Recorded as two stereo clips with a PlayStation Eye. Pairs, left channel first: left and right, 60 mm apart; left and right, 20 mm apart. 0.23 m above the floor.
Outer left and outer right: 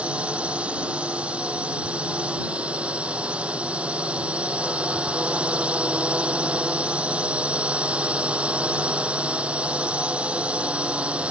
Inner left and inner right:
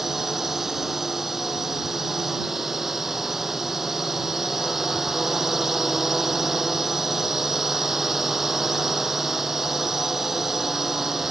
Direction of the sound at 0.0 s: 20° right (ahead or behind).